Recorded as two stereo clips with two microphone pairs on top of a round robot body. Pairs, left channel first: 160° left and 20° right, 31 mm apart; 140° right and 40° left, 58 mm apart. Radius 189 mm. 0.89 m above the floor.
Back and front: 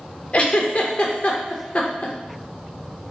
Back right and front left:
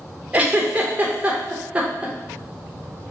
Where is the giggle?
110° left, 0.5 m.